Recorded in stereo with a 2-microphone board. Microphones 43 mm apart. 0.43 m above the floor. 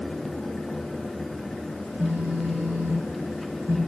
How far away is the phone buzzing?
About 3 m.